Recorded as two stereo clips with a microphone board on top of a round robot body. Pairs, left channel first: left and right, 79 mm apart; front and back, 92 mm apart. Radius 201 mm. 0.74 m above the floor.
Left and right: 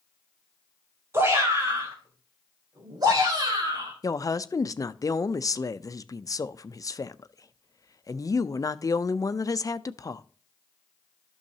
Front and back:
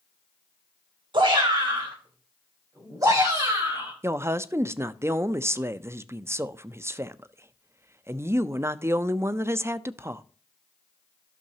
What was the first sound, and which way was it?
A shout, 145° right.